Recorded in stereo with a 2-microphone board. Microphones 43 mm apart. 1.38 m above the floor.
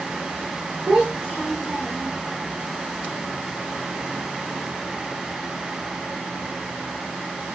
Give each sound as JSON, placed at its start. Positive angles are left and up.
{"t": 0.9, "sound": "a child speaking", "side_deg": -35, "distance_m": 1.2}